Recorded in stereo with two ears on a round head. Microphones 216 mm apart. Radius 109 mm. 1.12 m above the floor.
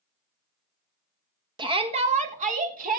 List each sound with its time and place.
1.6 s a shout: 20° right (ahead or behind), 1.5 m; by 3.0 s 40° right (ahead or behind), 3 m